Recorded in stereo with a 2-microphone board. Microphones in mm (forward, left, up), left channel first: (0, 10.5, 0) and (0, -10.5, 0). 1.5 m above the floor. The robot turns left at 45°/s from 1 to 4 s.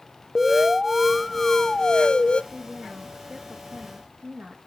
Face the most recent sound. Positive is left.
turn(degrees=-80)